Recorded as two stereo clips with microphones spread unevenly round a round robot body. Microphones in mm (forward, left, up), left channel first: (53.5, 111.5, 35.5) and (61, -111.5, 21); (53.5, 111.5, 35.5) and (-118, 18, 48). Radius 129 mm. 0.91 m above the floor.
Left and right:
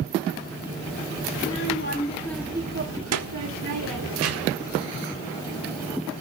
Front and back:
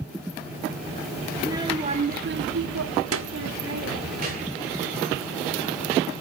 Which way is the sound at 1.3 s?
135° left.